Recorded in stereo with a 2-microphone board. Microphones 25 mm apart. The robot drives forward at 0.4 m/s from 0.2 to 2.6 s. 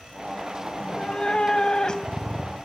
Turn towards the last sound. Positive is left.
turn(degrees=30)  # may be behind; listen again after turning